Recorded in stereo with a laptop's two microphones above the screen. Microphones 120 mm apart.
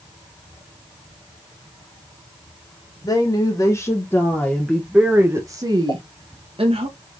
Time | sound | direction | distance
3.0 | a woman speaking | 40° left (ahead or behind) | 1.6 m
5.9 | a pop | 55° left (ahead or behind) | 1.8 m